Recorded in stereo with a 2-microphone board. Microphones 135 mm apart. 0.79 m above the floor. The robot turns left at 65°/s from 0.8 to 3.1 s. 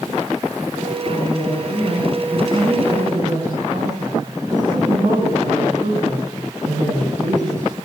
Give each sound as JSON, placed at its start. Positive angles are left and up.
{"t": 1.1, "sound": "a woman speaking", "azimuth_deg": 70, "distance_m": 8.5}